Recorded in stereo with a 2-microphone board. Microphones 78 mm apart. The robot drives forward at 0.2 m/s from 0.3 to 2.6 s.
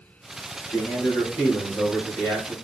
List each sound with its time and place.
0.7 s a man speaking: 35° left (ahead or behind), 1.6 m; by 2.5 s 30° left (ahead or behind), 1.7 m